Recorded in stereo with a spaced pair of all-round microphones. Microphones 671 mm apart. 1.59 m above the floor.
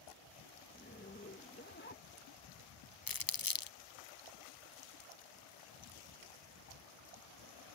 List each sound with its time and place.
0.7 s a zipper: 15° left (ahead or behind)
3.1 s crumpling: 35° left (ahead or behind)